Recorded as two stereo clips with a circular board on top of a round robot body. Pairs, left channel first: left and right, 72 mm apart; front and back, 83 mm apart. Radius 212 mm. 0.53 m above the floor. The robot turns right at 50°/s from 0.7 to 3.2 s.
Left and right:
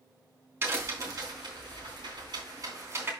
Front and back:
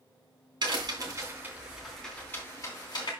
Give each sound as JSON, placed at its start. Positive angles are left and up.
{"t": 0.6, "sound": "a crack", "azimuth_deg": -150, "distance_m": 3.0}